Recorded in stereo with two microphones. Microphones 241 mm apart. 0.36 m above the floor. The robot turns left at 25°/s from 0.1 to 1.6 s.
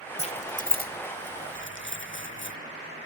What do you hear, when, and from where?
0.2 s keys jangling: 25° left (ahead or behind), 1.0 m; by 2.6 s 50° left (ahead or behind), 1.0 m